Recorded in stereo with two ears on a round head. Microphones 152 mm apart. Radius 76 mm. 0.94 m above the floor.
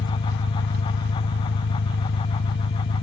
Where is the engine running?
70° left (ahead or behind).